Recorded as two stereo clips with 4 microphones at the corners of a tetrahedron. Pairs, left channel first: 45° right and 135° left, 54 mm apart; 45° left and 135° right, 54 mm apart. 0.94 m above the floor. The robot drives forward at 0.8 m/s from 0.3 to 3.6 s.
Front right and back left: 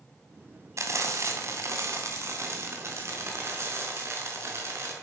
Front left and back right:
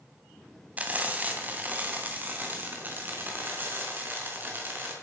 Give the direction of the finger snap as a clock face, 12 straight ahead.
No finger snap in this recording.